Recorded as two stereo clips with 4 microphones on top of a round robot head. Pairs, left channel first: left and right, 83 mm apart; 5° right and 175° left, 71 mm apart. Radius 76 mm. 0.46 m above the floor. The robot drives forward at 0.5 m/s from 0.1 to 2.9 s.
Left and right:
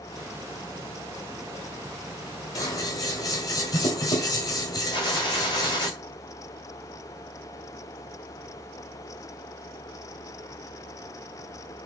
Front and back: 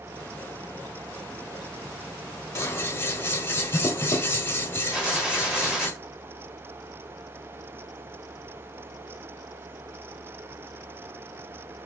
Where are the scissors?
40° left, 1.7 m; by 5.9 s 45° left, 1.6 m.